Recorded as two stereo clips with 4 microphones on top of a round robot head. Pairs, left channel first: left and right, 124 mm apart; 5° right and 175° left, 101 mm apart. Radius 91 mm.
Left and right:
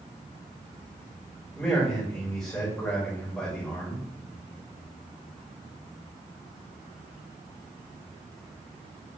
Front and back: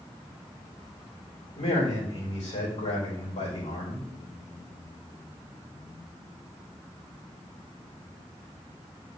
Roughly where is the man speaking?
Ahead.